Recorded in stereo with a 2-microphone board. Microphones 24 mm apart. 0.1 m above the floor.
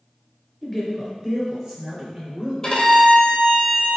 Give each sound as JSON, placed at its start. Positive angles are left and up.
{"t": 0.6, "sound": "a man speaking", "side_deg": -5, "distance_m": 1.5}
{"t": 2.6, "sound": "a violin", "side_deg": 30, "distance_m": 1.2}